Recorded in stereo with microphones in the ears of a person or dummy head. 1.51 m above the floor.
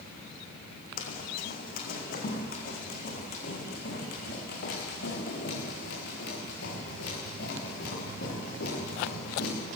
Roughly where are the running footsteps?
Left.